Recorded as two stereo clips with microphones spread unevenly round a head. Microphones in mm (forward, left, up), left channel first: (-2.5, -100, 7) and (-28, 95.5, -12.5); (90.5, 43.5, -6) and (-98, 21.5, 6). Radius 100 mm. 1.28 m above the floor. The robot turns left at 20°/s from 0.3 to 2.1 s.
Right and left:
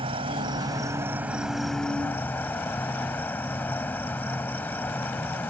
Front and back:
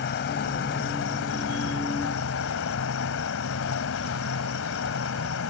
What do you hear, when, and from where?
0.0 s an insect: 30° left; by 5.5 s 5° right